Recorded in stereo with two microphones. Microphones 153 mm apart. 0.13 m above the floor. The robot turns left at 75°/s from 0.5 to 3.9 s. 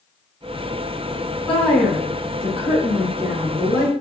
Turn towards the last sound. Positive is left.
turn(degrees=-10)  # may be behind; listen again after turning